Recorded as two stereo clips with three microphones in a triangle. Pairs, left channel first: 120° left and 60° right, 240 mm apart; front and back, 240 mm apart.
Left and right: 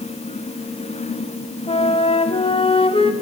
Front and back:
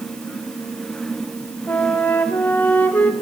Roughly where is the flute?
Left.